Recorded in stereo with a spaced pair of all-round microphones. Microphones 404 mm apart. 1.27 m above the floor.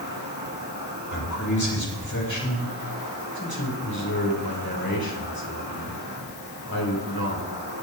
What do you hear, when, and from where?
0.0 s an insect: 50° right (ahead or behind), 3 m
1.1 s a man speaking: 45° left (ahead or behind), 6.5 m
3.4 s a man speaking: 60° left (ahead or behind), 4.5 m